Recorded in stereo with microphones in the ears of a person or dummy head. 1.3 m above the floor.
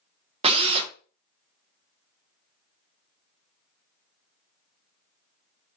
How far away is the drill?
About 0.7 m.